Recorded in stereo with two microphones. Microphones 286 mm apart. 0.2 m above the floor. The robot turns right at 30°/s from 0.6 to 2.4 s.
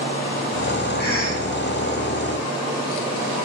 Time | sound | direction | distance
1.0 | a cough | 40° left (ahead or behind) | 4 m